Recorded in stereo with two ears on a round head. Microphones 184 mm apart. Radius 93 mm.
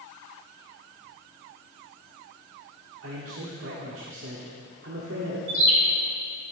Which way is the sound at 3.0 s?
70° right (ahead or behind).